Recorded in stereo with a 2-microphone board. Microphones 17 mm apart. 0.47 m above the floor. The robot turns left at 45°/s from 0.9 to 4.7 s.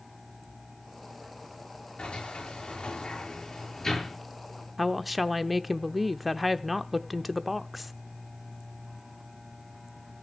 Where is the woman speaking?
5° right (ahead or behind), 0.8 m.